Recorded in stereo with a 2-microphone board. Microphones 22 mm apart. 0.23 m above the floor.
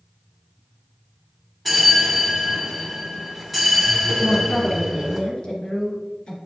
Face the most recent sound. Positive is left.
turn(degrees=40)  # may be behind; listen again after turning